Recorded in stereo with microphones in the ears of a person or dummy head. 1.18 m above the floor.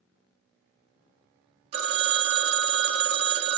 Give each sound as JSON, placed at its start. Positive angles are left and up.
{"t": 1.7, "sound": "a phone ringing", "side_deg": -40, "distance_m": 1.4}